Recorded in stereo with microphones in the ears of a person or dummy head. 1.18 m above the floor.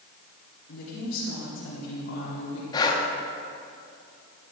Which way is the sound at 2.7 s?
25° left (ahead or behind).